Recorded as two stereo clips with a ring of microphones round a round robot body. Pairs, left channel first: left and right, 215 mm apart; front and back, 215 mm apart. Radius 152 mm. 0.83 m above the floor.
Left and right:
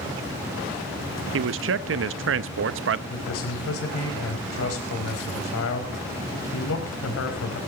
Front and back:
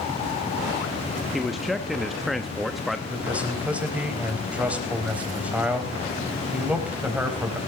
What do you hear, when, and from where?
1.3 s a man speaking: 90° right, 0.7 m
3.1 s a man speaking: 95° left, 4 m